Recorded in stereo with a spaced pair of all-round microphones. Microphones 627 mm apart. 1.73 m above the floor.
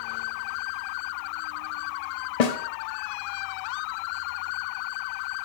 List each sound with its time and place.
2.4 s a snare drum: 75° left (ahead or behind), 0.8 m